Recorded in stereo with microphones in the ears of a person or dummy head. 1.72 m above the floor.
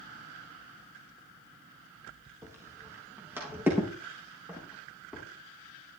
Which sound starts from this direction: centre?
Footsteps, at 2.4 s.